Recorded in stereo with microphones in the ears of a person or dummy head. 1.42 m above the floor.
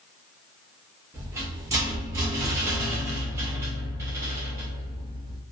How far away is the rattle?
About 0.8 m.